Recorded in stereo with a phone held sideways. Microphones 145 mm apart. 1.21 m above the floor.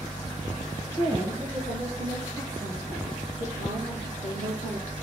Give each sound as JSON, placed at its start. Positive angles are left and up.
{"t": 1.0, "sound": "a woman speaking", "side_deg": -45, "distance_m": 2.0}